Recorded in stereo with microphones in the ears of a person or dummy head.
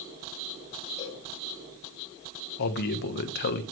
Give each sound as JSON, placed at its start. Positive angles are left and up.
{"t": 1.0, "sound": "a cowbell", "side_deg": 30, "distance_m": 5.5}
{"t": 2.6, "sound": "a man speaking", "side_deg": 55, "distance_m": 1.3}